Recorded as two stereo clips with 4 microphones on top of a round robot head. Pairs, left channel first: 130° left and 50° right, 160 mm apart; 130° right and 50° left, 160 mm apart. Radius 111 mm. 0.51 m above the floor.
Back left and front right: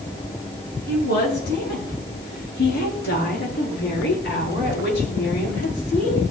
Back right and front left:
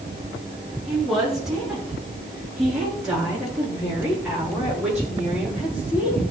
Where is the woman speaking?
140° left, 7.5 m; by 6.2 s 135° left, 10.5 m.